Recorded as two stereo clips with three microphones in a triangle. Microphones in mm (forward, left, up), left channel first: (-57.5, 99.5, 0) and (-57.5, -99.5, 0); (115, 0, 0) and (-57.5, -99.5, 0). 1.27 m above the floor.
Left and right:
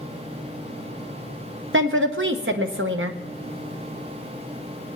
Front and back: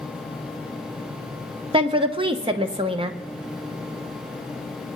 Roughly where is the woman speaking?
Right.